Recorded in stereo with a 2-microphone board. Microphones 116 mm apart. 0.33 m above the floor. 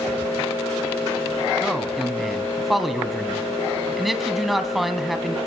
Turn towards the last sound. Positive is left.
turn(degrees=0)  # may be behind; listen again after turning